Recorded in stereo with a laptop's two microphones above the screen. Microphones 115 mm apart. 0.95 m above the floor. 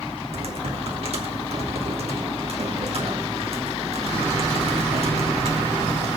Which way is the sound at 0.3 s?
60° right (ahead or behind).